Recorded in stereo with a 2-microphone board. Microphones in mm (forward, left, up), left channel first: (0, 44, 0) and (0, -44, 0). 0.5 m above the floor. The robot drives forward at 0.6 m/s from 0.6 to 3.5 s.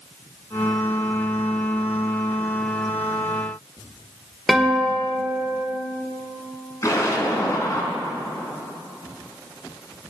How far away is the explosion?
About 3 m.